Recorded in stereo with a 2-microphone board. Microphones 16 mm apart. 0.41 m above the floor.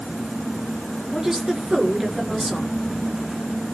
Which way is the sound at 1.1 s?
40° right (ahead or behind).